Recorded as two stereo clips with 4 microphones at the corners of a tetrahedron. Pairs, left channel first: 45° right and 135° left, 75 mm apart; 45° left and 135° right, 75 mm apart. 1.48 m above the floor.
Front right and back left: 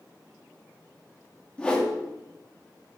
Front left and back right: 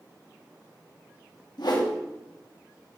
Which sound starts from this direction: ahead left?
A whoosh, at 1.6 s.